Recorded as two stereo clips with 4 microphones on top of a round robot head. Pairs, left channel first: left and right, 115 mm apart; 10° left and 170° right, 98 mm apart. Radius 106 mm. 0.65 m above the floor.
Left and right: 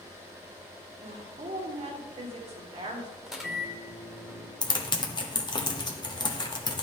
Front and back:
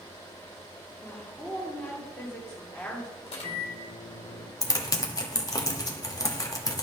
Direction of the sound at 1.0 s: 65° right.